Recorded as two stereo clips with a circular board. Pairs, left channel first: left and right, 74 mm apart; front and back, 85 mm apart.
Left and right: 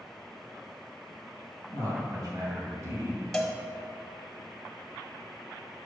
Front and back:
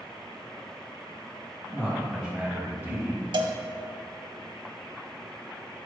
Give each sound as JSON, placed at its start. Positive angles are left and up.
{"t": 1.7, "sound": "a man speaking", "azimuth_deg": -95, "distance_m": 2.5}
{"t": 3.3, "sound": "a cowbell", "azimuth_deg": 175, "distance_m": 1.0}